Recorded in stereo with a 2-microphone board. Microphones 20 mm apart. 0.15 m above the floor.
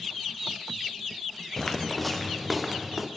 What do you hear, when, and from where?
1.6 s footsteps: 25° left (ahead or behind), 0.9 m; by 3.1 s 5° right (ahead or behind), 1.6 m